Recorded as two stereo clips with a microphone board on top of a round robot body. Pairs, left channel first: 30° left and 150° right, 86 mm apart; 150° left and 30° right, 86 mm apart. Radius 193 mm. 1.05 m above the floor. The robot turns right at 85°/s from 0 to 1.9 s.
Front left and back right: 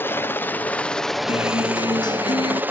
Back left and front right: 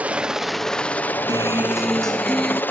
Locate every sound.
0.0 s a helicopter: 15° left; by 2.7 s straight behind
1.3 s a guitar: 15° left; by 2.6 s 65° left